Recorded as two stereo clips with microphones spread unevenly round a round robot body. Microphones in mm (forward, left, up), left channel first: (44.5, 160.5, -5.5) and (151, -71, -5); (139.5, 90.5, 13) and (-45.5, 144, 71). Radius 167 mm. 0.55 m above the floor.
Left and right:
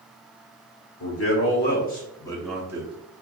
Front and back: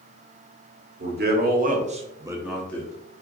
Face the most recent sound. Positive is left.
turn(degrees=-10)